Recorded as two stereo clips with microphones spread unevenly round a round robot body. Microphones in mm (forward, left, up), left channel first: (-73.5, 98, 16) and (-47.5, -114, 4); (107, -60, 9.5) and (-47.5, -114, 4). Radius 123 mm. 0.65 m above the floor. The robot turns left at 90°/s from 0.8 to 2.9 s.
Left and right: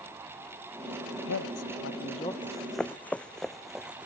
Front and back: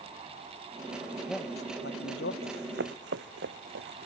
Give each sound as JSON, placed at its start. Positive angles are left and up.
{"t": 1.1, "sound": "a man speaking", "azimuth_deg": 125}
{"t": 2.4, "sound": "running footsteps", "azimuth_deg": -150}